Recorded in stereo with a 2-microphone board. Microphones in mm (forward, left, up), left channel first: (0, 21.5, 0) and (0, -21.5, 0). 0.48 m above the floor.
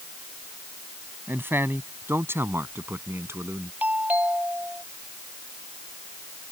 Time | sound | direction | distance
1.3 | a man speaking | 60° right (ahead or behind) | ?
3.8 | a doorbell | 40° right (ahead or behind) | ?